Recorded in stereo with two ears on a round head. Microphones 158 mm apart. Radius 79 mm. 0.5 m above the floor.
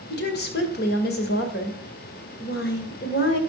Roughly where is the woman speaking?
Left.